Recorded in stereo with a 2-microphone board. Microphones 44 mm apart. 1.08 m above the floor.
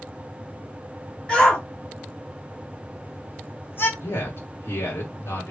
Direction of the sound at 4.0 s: 80° left.